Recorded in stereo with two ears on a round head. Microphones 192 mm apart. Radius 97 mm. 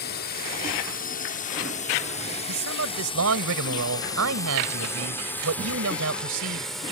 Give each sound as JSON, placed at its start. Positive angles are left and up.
{"t": 0.0, "sound": "a drone", "side_deg": 50}
{"t": 2.5, "sound": "a man speaking", "side_deg": -70}